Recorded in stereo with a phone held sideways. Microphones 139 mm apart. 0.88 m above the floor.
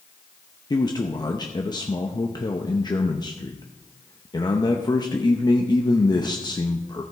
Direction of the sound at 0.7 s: 30° left (ahead or behind).